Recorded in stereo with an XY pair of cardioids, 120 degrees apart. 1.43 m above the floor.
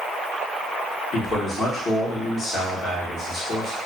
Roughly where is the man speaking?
Ahead left.